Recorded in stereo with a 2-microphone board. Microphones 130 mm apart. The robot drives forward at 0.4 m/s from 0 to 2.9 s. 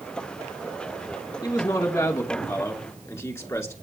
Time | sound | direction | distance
1.4 | a man speaking | 25° left (ahead or behind) | 1.6 m